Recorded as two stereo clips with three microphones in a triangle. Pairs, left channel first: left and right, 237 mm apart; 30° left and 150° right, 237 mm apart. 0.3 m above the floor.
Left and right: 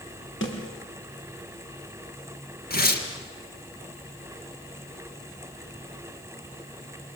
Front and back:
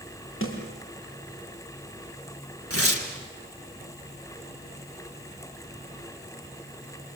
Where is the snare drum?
60° left, 5 m.